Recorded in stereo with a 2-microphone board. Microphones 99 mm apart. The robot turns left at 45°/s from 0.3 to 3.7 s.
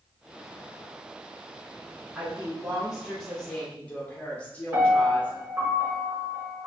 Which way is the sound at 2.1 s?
15° right (ahead or behind).